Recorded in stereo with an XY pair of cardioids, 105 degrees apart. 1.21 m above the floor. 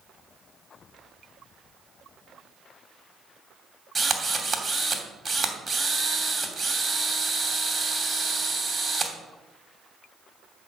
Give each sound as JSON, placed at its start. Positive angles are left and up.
{"t": 4.0, "sound": "a drill", "azimuth_deg": -15, "distance_m": 2.5}